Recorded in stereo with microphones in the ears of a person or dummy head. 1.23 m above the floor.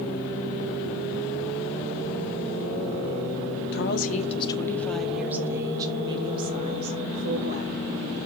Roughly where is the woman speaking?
Left.